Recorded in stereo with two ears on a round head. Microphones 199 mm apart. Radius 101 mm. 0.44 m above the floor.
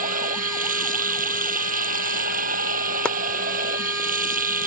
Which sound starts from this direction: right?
Running water, at 0.0 s.